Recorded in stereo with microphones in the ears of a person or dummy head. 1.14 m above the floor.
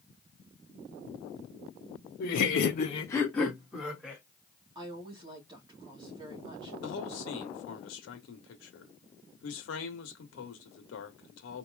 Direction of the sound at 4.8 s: 25° right (ahead or behind).